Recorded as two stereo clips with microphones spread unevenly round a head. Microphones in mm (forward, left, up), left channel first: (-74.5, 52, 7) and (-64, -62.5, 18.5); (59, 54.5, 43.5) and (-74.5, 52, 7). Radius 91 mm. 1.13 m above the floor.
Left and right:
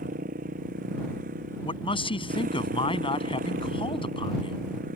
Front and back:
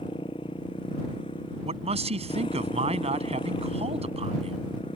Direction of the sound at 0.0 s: 65° right.